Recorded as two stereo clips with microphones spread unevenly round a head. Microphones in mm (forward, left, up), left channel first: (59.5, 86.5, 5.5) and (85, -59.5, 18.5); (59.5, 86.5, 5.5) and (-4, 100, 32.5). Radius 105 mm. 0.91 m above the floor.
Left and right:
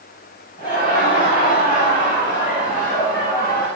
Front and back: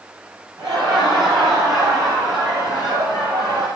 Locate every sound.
0.6 s laughter: 160° left, 6.5 m; by 3.7 s 145° left, 7 m